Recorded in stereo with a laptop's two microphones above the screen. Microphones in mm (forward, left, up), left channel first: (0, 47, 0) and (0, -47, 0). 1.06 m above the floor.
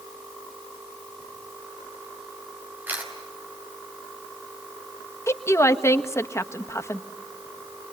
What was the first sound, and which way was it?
A camera shutter, 20° right (ahead or behind).